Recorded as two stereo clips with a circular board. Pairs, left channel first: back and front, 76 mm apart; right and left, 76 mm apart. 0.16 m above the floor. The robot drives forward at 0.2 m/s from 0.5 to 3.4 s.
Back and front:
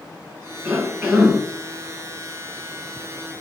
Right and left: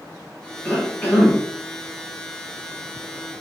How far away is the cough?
About 1.1 m.